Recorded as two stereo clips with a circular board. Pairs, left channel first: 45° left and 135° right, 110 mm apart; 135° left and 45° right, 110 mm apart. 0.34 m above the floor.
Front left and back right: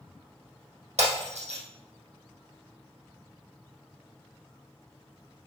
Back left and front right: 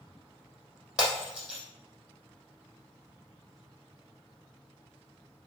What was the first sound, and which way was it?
Breaking glass, 125° right.